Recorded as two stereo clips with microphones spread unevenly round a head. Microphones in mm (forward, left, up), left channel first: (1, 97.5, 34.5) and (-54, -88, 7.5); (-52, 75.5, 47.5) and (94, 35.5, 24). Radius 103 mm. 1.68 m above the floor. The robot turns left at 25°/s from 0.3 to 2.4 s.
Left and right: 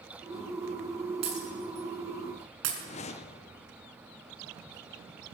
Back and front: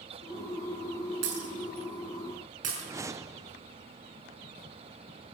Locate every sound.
1.2 s breaking glass: 40° right, 6 m; by 2.7 s 70° right, 6 m
2.8 s a whoosh: 55° left, 0.7 m